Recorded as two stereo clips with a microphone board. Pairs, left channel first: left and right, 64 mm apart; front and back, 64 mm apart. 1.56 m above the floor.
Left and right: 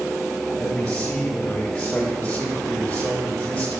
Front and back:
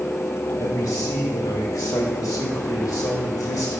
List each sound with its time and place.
0.6 s a man speaking: 15° left, 1.9 m